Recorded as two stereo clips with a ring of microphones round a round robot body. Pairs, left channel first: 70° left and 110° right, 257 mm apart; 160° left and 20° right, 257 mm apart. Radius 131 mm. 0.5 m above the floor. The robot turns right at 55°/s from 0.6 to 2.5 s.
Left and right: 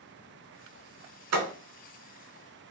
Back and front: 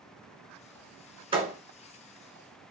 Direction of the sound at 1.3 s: 90° right.